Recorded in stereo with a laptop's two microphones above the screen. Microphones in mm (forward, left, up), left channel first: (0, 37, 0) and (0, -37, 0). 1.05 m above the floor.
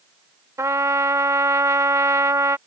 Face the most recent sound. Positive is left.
turn(degrees=-45)  # may be behind; listen again after turning